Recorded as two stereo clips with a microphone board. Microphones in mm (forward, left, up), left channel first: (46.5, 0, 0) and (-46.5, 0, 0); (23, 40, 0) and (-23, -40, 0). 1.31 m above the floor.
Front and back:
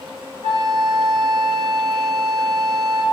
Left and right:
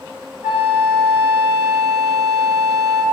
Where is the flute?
165° left, 3.5 m.